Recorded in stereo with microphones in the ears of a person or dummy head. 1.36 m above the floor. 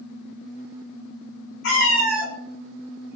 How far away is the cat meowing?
About 1.8 m.